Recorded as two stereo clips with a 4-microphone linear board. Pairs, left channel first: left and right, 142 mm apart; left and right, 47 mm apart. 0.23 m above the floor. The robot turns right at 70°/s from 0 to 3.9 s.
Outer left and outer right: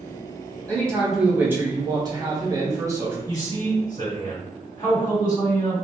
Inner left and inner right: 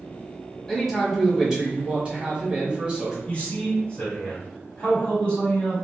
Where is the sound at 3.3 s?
60° left, 1.8 m; by 5.8 s 100° left, 1.8 m.